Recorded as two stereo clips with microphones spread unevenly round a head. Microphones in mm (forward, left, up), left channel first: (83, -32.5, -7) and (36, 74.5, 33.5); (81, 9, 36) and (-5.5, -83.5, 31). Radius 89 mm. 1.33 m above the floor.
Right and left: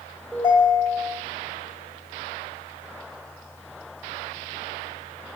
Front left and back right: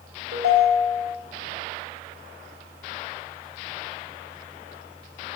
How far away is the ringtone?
About 2.5 m.